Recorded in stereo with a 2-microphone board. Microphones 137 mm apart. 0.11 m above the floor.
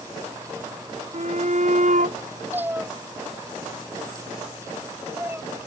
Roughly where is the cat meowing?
Centre.